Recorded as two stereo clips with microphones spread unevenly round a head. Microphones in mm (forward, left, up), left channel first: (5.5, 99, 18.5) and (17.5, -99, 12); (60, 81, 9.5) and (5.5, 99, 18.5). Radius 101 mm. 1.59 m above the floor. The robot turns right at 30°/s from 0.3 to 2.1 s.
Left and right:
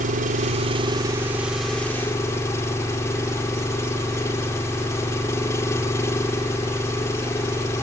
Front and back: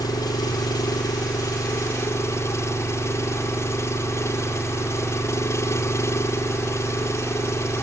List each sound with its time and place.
0.0 s an engine running: 35° right; by 7.8 s 20° left